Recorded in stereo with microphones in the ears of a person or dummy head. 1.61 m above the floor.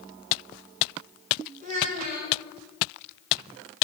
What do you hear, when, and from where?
1.6 s a child speaking: 45° right (ahead or behind), 4.5 m